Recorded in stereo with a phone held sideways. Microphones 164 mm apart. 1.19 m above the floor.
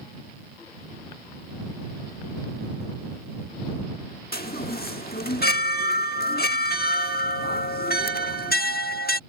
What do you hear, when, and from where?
4.3 s a chime: 65° left (ahead or behind)